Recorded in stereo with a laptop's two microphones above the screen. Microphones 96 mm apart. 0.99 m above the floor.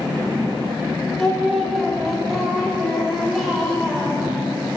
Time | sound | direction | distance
1.2 | singing | centre (ahead or behind) | 1.1 m